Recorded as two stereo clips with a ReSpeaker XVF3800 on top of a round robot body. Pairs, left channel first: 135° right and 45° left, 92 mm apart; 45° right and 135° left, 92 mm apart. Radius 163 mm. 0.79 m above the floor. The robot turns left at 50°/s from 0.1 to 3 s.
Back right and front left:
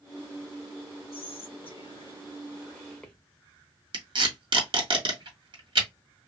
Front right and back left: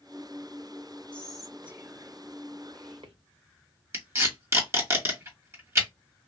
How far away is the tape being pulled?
About 1.8 m.